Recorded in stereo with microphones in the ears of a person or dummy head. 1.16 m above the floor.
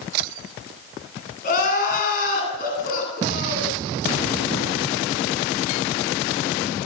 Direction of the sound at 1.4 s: 55° left (ahead or behind).